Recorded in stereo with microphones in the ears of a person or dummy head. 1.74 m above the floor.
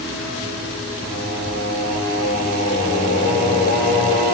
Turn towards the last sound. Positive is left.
turn(degrees=25)  # may be behind; listen again after turning